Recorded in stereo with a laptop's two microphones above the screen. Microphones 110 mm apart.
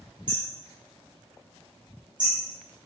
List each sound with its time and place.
0.3 s hammering: 45° right (ahead or behind), 4.5 m